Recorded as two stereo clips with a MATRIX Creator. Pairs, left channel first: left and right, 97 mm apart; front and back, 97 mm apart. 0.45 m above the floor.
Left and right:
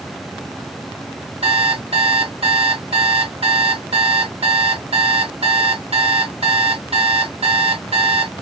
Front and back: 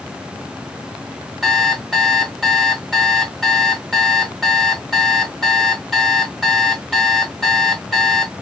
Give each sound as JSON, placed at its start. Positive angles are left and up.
{"t": 1.4, "sound": "an alarm clock", "azimuth_deg": -85, "distance_m": 0.7}